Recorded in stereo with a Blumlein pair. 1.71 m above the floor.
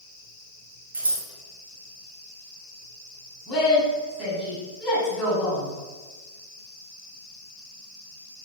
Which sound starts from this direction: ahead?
A woman speaking, at 3.5 s.